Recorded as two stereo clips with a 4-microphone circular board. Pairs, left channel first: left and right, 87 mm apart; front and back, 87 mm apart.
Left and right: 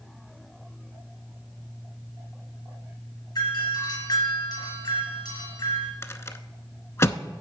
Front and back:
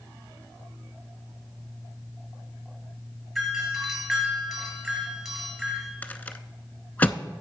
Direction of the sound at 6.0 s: 55° left.